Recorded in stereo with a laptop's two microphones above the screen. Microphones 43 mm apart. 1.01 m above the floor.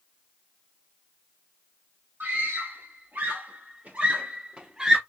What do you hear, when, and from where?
2.2 s a scream: 60° right (ahead or behind), 2.0 m; by 5.0 s 10° right (ahead or behind), 1.1 m